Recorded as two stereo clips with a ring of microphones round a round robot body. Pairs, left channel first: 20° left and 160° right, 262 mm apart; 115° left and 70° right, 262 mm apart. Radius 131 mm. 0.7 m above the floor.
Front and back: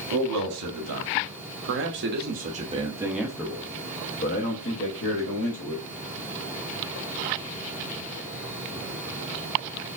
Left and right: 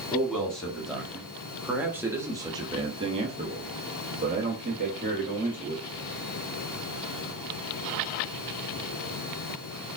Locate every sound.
0.1 s a man speaking: 160° right, 1.9 m; by 5.8 s 5° right, 1.7 m